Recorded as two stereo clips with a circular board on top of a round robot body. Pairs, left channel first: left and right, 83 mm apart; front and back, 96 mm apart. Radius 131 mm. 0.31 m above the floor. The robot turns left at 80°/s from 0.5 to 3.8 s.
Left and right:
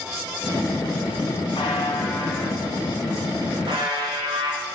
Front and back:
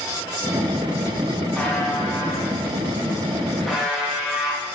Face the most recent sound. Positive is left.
turn(degrees=-95)